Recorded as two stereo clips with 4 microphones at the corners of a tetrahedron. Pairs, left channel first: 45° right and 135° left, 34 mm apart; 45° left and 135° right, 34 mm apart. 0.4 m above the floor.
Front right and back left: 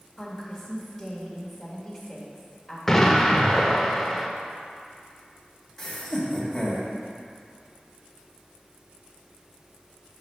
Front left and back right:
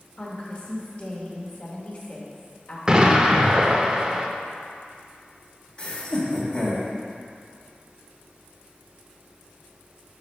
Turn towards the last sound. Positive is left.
turn(degrees=20)